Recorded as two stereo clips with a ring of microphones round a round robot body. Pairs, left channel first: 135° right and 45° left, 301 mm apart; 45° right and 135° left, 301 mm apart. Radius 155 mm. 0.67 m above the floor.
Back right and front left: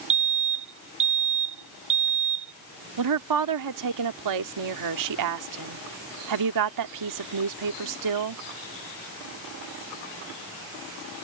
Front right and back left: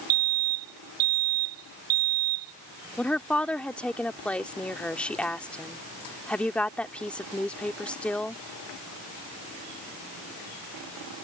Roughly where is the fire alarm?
Left.